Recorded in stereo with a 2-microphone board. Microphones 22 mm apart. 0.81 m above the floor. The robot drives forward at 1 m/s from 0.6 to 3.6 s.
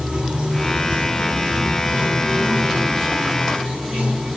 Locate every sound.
0.0 s running water: 85° right, 6 m; by 4.4 s 65° right (ahead or behind), 6.5 m